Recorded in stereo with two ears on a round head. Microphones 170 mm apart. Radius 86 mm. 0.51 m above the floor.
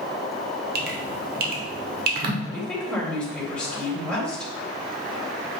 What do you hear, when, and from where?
0.8 s dripping: 50° right (ahead or behind), 1.3 m
2.5 s a woman speaking: 5° left (ahead or behind), 3 m